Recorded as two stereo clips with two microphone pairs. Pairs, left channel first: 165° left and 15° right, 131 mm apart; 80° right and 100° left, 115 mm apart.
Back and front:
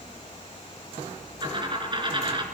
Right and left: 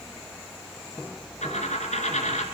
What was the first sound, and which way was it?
A dropped coin, 70° right.